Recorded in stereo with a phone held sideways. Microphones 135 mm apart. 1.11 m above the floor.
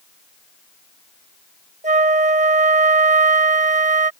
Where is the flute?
65° right (ahead or behind).